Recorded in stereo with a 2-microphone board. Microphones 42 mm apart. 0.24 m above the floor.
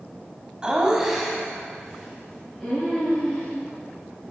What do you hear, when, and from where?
0.6 s laughter: 20° right (ahead or behind), 1.5 m; by 3.5 s 20° left (ahead or behind), 3.5 m